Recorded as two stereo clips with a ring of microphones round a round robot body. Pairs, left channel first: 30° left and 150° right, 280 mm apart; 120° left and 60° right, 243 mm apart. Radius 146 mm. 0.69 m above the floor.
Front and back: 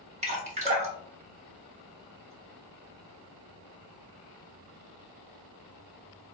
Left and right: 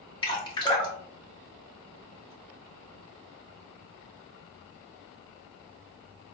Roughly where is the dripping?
Behind.